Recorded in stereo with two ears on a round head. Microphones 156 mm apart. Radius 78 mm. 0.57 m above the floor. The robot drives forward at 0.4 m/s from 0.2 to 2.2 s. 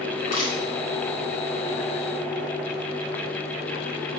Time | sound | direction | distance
0.1 | crushing | 50° left (ahead or behind) | 4 m